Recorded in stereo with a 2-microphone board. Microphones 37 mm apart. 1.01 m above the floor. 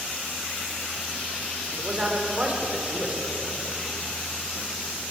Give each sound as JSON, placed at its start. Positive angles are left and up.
{"t": 1.8, "sound": "a man speaking", "side_deg": -35, "distance_m": 4.5}